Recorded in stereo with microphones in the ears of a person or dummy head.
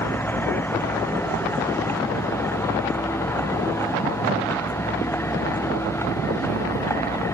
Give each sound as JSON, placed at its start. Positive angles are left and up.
{"t": 0.0, "sound": "a vehicle", "side_deg": 10}